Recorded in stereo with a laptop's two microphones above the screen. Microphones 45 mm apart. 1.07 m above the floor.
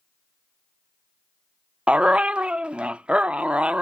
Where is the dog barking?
25° right (ahead or behind), 0.6 m.